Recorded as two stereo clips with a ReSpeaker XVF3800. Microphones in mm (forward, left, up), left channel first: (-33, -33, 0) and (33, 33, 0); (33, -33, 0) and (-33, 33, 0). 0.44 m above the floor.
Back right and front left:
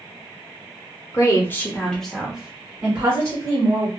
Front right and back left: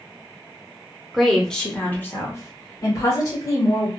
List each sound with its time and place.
1.1 s a woman speaking: 135° right, 0.8 m; by 3.9 s 5° right, 1.3 m